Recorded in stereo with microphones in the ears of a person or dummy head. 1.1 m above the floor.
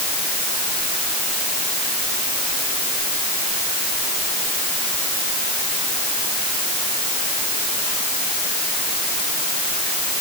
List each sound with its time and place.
Only background noise.